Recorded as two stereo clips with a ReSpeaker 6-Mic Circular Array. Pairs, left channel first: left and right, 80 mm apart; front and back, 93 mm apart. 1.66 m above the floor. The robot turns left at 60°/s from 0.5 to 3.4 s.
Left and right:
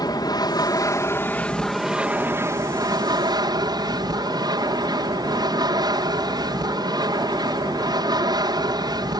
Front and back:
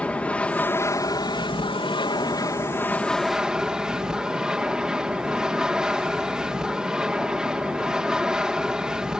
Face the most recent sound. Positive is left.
turn(degrees=-100)